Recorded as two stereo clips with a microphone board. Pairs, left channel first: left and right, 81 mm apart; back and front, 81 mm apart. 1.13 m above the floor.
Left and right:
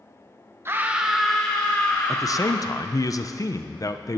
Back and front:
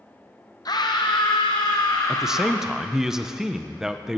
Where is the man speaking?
80° left, 0.7 m.